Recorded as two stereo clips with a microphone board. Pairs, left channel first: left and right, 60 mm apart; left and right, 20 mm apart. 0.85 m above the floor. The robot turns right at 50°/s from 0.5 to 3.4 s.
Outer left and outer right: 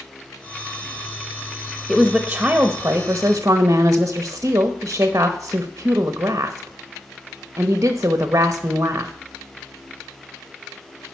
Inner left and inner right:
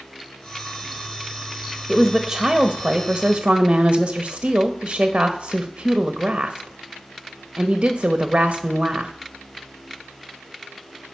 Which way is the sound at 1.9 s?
170° left.